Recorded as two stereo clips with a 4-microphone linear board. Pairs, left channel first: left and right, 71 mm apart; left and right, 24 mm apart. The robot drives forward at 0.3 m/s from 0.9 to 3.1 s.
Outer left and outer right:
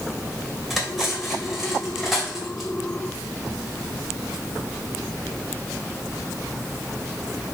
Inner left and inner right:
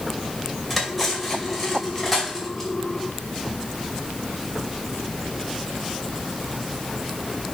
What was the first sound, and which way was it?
Cutlery clinking, centre (ahead or behind).